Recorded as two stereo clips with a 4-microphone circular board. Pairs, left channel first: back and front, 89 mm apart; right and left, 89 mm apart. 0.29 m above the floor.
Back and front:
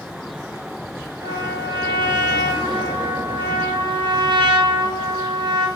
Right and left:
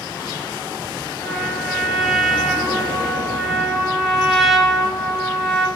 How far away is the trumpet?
About 0.5 m.